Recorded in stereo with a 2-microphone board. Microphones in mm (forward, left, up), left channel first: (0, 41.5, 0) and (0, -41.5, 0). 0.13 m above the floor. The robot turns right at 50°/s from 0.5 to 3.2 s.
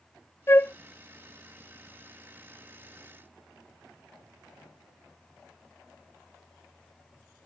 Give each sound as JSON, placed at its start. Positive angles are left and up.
{"t": 0.5, "sound": "a flute", "side_deg": 30}